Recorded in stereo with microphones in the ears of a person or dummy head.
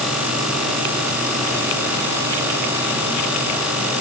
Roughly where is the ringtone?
No ringtone in this recording.